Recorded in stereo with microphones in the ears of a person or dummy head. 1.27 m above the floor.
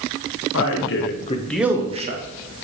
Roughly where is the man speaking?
Left.